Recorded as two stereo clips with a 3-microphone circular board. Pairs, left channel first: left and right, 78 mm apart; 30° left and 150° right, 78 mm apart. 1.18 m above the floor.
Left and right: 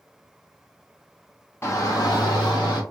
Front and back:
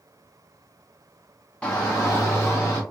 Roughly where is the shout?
Left.